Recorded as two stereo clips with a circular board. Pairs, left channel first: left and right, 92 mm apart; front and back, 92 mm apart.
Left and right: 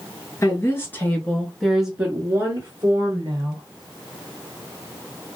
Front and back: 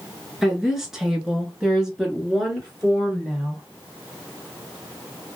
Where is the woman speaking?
95° left, 1.2 m; by 3.6 s 95° right, 1.5 m.